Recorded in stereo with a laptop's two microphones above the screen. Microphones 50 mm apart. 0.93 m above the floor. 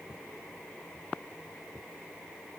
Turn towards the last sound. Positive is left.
No sound to turn to.